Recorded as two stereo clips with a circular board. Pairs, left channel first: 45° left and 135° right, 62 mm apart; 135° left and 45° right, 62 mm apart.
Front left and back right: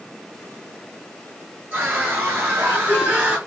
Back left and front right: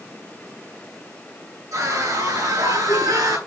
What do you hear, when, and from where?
1.7 s a scream: 80° right, 9 m; by 3.4 s 70° right, 7 m